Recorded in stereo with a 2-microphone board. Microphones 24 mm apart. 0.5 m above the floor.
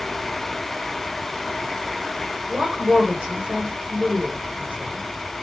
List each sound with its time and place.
2.5 s a woman speaking: 50° right (ahead or behind), 1.9 m